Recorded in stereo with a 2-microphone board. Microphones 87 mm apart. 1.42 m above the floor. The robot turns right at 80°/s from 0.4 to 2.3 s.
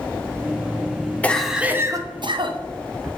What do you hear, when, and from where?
1.2 s a cough: 165° left, 0.9 m; by 2.6 s 110° right, 0.9 m